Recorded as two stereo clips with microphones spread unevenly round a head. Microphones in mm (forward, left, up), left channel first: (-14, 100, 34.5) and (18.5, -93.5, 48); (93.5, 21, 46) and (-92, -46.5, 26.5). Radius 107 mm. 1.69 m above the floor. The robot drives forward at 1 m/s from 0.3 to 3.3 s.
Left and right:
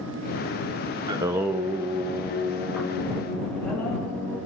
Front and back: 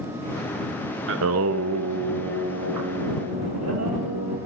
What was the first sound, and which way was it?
Singing, 145° right.